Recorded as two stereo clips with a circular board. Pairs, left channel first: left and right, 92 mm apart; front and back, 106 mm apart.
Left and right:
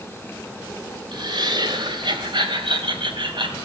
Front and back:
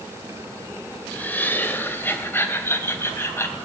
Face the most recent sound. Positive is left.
turn(degrees=-65)